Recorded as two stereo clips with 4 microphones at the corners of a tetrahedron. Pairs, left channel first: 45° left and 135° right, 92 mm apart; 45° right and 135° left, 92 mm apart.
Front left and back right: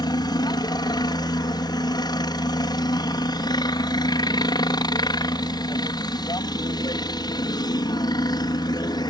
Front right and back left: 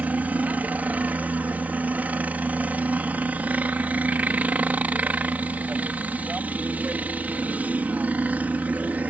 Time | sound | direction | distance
0.0 | a helicopter | 65° left | ?